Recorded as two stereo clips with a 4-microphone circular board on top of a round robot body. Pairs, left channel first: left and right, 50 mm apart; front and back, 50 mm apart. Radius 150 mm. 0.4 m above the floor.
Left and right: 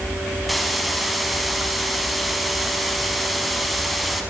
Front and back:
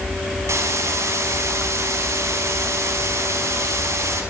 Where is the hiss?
Straight behind, 5 m.